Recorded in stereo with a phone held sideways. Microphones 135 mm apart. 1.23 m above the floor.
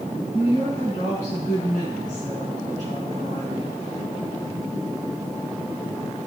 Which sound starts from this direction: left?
A woman speaking, at 0.3 s.